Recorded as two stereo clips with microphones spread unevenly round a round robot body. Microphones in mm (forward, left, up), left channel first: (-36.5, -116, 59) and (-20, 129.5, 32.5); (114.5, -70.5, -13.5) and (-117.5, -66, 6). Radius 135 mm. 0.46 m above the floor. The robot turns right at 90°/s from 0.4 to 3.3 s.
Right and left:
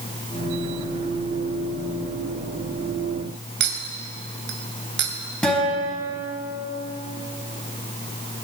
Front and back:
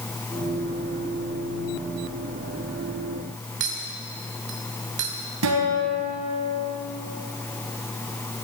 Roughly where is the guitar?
Behind.